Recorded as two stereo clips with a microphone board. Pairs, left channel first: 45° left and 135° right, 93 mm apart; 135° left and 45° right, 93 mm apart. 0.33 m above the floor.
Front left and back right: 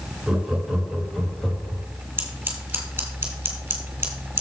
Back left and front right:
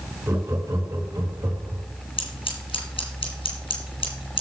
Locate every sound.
0.3 s laughter: 65° right, 1.5 m; by 1.8 s 30° right, 2.5 m
2.2 s scissors: 150° left, 2.5 m